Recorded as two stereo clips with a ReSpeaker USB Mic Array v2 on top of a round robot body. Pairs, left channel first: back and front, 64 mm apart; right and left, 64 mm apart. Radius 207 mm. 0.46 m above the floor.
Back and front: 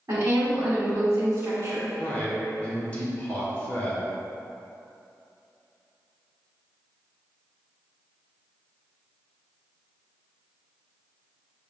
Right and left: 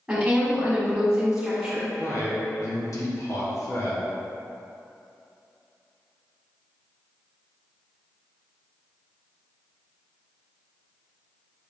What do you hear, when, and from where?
0.1 s a woman speaking: 20° left, 1.6 m
2.0 s a man speaking: 115° right, 1.3 m